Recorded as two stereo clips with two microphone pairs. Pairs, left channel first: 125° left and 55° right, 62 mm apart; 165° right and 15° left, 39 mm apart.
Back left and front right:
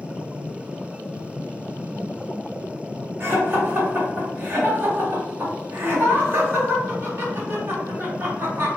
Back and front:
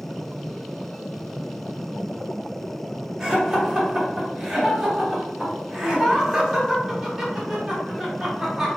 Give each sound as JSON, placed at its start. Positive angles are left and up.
{"t": 3.2, "sound": "laughter", "azimuth_deg": -50, "distance_m": 0.8}